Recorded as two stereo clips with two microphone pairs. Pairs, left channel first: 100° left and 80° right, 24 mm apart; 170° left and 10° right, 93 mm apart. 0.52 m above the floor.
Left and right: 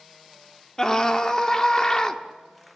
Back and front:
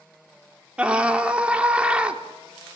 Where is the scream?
60° left, 1.1 m.